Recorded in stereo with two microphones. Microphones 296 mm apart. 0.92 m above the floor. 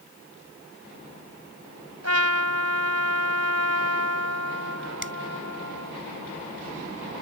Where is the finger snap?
40° right (ahead or behind).